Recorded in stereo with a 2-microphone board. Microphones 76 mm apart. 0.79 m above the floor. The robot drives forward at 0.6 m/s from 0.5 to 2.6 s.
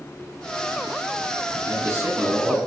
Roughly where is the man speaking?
Right.